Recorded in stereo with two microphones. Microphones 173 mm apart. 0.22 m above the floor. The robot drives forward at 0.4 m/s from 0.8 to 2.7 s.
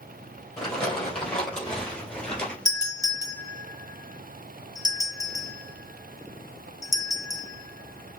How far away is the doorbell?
About 1.6 m.